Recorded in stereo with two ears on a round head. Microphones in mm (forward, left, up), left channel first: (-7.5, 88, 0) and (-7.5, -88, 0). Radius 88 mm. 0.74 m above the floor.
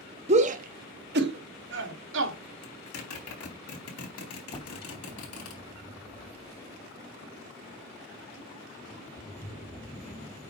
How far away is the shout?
About 1.0 m.